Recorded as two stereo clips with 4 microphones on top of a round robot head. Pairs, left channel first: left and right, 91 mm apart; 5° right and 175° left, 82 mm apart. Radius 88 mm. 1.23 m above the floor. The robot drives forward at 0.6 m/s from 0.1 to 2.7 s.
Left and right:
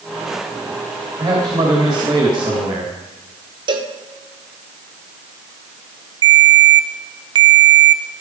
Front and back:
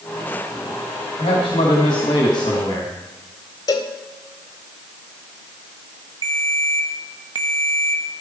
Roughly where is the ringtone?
Behind right.